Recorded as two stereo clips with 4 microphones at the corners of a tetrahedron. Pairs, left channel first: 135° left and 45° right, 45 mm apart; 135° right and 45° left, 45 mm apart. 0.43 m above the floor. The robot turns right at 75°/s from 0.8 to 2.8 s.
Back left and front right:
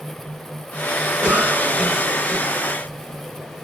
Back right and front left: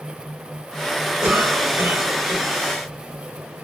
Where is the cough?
5° right, 2.5 m; by 2.5 s 90° left, 2.5 m.